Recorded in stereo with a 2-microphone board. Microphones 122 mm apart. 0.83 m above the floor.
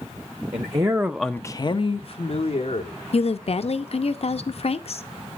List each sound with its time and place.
0.5 s a man speaking: 40° right (ahead or behind), 1.1 m; by 3.0 s 60° left (ahead or behind), 2 m
3.1 s a woman speaking: 55° left (ahead or behind), 0.7 m